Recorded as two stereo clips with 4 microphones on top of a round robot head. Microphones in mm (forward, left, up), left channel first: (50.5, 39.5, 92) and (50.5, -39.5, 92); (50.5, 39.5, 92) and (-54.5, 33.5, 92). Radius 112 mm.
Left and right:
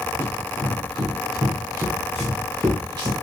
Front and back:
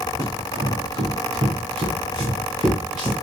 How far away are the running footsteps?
About 1.7 m.